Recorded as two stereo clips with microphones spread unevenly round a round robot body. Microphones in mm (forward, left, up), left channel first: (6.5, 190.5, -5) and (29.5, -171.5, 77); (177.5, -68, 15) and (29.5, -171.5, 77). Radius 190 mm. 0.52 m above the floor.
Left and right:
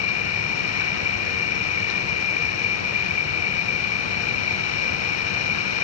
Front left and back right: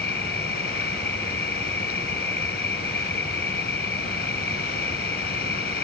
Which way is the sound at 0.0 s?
80° left.